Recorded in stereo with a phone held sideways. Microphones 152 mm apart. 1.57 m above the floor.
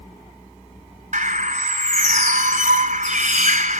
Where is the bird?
55° right (ahead or behind), 0.9 m.